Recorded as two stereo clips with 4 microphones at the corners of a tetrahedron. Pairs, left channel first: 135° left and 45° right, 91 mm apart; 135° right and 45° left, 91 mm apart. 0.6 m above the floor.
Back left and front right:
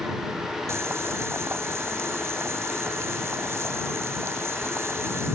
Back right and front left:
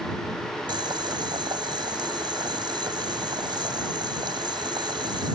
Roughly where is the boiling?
Ahead.